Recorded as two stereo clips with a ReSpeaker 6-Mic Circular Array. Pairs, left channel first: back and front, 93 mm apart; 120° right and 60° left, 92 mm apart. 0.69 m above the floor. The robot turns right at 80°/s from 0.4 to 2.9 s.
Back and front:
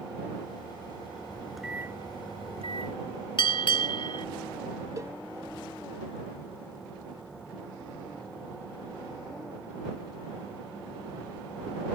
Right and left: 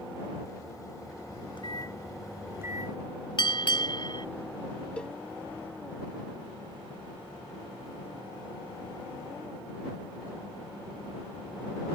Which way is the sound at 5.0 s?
45° right.